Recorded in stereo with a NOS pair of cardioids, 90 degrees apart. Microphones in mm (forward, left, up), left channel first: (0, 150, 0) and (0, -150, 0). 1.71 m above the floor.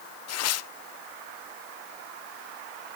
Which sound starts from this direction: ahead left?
Tearing paper, at 0.3 s.